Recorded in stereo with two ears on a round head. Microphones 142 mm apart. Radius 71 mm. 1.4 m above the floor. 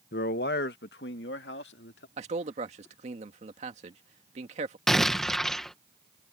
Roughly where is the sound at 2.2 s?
Right.